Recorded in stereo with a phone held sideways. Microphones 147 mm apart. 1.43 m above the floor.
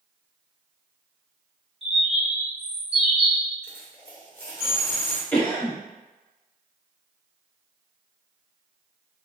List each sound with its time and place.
1.8 s a bird: 45° right (ahead or behind), 0.9 m
3.6 s a dropped coin: 15° left (ahead or behind), 1.3 m
5.3 s a cough: 15° left (ahead or behind), 1.0 m